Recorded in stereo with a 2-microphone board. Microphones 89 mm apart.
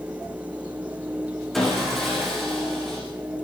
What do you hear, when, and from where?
1.5 s sawing: centre (ahead or behind), 9.5 m